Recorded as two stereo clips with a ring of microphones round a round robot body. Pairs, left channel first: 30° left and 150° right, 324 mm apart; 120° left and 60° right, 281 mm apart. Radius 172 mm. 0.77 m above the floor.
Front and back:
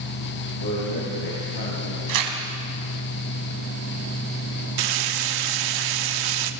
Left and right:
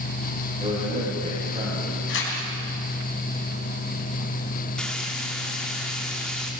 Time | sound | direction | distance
0.6 | a man speaking | 5° left | 6.5 m
2.1 | tearing paper | 175° left | 4 m
4.8 | frying | 150° right | 1.3 m